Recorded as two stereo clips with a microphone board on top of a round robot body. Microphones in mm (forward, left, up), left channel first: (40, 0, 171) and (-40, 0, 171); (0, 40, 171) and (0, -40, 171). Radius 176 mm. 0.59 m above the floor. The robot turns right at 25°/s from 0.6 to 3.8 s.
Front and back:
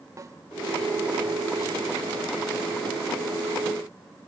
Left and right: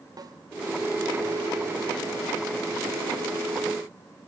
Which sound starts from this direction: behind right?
A snare drum, at 0.2 s.